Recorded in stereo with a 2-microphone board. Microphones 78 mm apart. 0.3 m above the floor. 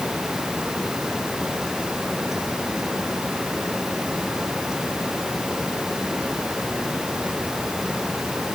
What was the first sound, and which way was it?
Only background noise.